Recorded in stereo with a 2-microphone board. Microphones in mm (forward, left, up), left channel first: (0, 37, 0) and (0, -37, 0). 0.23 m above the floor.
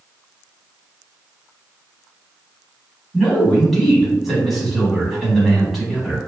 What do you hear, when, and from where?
3.1 s a man speaking: 5° right (ahead or behind), 1.4 m